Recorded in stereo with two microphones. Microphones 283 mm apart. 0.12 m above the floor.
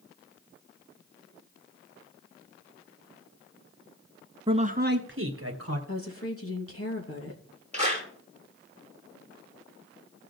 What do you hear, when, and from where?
4.5 s a man speaking: 15° right (ahead or behind), 1.2 m; by 5.8 s 55° right (ahead or behind), 2.5 m
5.9 s a woman speaking: 50° left (ahead or behind), 3 m
7.7 s a clap: 25° right (ahead or behind), 2.5 m